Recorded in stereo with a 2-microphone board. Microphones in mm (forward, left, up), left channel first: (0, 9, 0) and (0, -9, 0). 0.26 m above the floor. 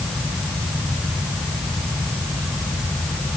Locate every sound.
Only background noise.